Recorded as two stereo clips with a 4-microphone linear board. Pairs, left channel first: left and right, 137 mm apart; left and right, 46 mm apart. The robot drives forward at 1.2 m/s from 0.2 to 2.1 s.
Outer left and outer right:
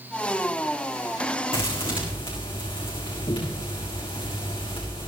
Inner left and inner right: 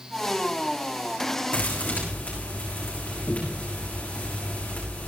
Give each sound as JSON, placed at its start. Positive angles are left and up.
{"t": 1.5, "sound": "a thud", "side_deg": 45, "distance_m": 6.5}